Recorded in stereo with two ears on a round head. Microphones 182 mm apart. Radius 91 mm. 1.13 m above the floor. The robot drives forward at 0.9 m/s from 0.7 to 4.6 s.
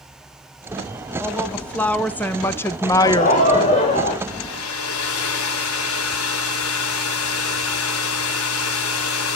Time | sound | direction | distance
1.2 | a woman speaking | 5° left (ahead or behind) | 2.5 m
3.0 | laughter | 40° left (ahead or behind) | 3 m
4.3 | a hair dryer | 80° left | 3.5 m